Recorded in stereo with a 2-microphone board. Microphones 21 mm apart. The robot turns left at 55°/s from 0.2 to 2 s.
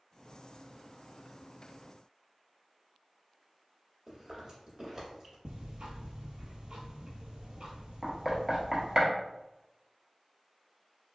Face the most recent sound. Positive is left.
turn(degrees=-15)  # may be behind; listen again after turning